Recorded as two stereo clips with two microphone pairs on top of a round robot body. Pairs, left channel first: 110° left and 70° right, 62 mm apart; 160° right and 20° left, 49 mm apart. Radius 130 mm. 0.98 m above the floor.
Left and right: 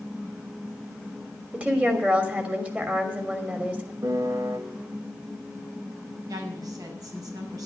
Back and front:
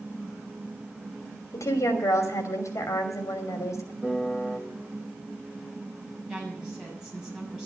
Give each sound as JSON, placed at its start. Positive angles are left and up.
{"t": 1.5, "sound": "a woman speaking", "azimuth_deg": -140, "distance_m": 3.0}
{"t": 4.0, "sound": "a piano", "azimuth_deg": -60, "distance_m": 1.8}
{"t": 6.3, "sound": "a woman speaking", "azimuth_deg": -60, "distance_m": 7.0}